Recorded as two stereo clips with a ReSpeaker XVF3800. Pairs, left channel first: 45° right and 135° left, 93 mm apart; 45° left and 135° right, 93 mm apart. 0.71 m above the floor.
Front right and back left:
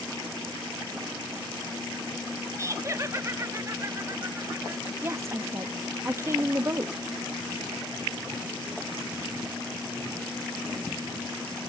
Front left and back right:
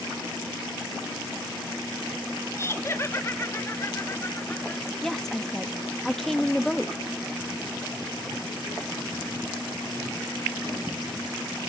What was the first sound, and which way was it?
Laughter, 90° left.